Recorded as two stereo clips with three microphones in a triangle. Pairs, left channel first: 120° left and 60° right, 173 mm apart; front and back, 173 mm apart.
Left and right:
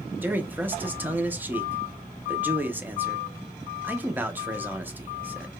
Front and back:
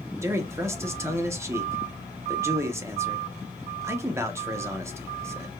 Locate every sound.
0.2 s a man speaking: 125° right, 0.6 m